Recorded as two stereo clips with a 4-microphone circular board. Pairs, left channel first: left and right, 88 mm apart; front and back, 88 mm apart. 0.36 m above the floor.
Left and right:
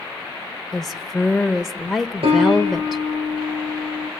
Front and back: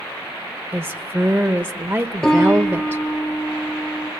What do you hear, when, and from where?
0.7 s a woman speaking: 175° left, 1.0 m
2.2 s a piano: 80° right, 5 m